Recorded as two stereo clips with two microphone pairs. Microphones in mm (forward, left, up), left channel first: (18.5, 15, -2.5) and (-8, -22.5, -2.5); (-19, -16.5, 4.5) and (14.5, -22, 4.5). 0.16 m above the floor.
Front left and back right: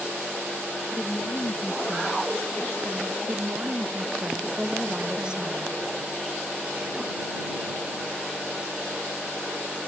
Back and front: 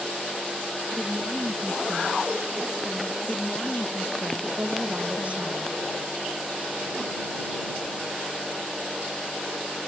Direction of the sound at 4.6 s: 55° right.